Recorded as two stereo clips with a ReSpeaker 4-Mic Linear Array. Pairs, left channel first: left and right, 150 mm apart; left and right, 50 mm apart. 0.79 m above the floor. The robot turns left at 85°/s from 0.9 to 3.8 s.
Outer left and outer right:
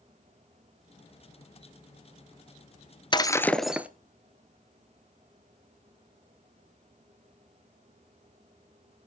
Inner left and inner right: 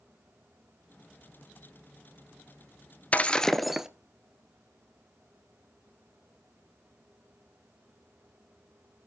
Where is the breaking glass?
45° left, 1.0 m; by 3.9 s 15° right, 1.0 m.